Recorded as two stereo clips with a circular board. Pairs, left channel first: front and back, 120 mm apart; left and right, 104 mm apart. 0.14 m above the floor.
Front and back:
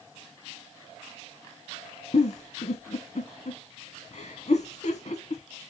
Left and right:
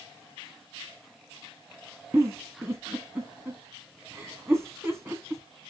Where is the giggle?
25° right, 2.0 m.